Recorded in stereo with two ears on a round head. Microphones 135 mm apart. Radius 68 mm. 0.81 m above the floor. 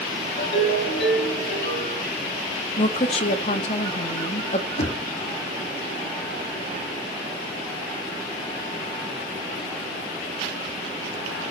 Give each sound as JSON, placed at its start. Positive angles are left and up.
{"t": 0.4, "sound": "a ringtone", "side_deg": 65, "distance_m": 9.5}
{"t": 2.8, "sound": "a woman speaking", "side_deg": 45, "distance_m": 1.5}
{"t": 4.8, "sound": "knocking", "side_deg": 45, "distance_m": 1.5}